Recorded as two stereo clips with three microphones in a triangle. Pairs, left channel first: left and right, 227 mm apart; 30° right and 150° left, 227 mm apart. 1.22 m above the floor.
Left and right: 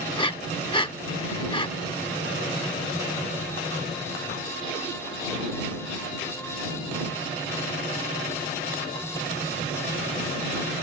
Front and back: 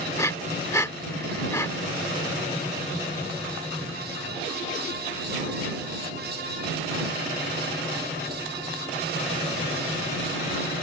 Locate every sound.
0.2 s breathing: 35° left